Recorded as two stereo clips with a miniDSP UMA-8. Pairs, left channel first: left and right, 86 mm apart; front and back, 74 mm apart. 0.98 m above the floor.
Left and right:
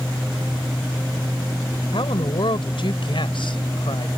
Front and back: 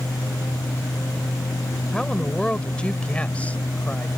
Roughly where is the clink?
I don't hear a clink.